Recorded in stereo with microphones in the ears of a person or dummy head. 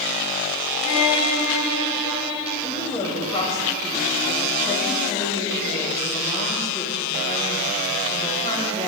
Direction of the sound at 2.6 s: 25° left (ahead or behind).